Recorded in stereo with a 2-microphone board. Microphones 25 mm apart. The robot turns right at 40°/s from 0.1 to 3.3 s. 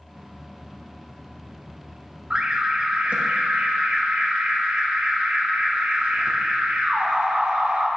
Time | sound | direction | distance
2.3 | an alarm | 145° right | 0.8 m